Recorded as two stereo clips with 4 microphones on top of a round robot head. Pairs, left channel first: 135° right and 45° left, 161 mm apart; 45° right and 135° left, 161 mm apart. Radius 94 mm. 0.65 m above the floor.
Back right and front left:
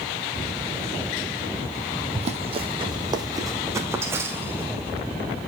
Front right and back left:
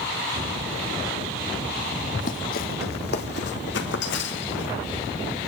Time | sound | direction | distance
2.1 | running footsteps | 5° right | 1.2 m